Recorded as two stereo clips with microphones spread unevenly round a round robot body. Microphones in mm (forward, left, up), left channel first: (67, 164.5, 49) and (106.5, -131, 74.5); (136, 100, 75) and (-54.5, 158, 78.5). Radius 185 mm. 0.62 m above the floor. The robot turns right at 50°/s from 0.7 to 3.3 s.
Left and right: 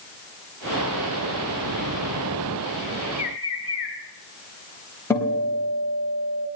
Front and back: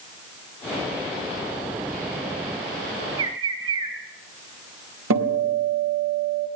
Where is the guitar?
Straight behind, 3 m.